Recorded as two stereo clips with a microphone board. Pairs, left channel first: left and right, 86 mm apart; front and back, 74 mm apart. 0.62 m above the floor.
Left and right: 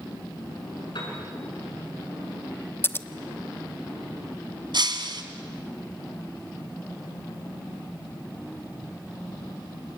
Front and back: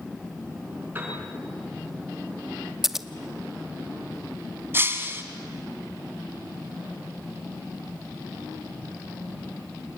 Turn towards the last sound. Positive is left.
turn(degrees=-120)